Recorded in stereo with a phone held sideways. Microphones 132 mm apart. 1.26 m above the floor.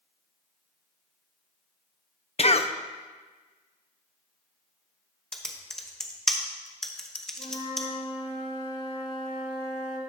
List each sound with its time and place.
2.4 s a cough: 50° left (ahead or behind), 0.5 m
5.3 s typing on a keyboard: 5° left (ahead or behind), 0.8 m
7.4 s a flute: 40° left (ahead or behind), 1.4 m